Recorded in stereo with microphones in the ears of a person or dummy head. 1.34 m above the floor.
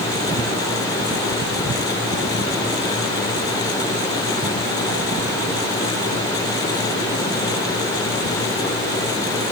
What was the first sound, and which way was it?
Only background noise.